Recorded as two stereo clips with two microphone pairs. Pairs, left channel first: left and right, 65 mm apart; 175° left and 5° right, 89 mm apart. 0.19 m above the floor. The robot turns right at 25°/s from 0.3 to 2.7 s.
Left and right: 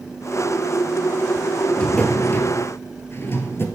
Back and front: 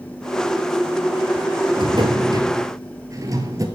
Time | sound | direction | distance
1.8 | a drawer | 20° left | 1.5 m